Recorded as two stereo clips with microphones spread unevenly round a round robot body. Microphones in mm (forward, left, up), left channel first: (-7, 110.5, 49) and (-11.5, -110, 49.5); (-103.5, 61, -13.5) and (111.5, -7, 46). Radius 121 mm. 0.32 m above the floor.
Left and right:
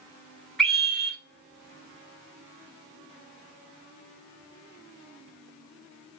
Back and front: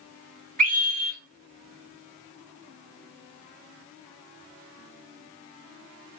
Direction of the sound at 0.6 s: Straight ahead.